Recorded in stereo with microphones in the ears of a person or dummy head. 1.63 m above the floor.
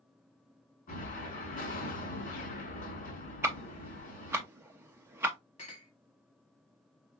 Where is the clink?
30° left (ahead or behind), 1.1 m.